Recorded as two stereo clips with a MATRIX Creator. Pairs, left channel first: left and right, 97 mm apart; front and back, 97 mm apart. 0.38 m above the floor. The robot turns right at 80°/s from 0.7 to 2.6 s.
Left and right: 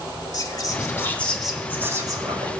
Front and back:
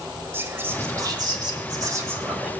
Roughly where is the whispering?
Behind left.